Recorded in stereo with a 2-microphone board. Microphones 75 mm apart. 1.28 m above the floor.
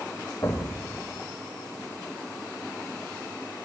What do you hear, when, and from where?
0.4 s an explosion: 45° left (ahead or behind), 1.6 m